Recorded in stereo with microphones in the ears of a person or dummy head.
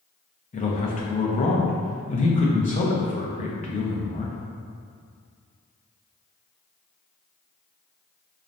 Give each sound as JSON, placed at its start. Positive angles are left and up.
{"t": 0.5, "sound": "a man speaking", "side_deg": 30, "distance_m": 0.7}